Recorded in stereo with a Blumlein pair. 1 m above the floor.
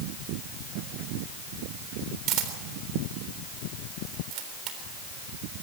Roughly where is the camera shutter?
Ahead right.